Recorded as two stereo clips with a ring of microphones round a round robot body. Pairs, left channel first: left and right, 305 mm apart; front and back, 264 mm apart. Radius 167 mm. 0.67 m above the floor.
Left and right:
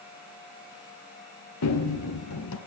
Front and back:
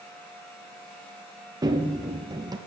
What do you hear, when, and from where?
1.6 s running footsteps: 110° left, 0.8 m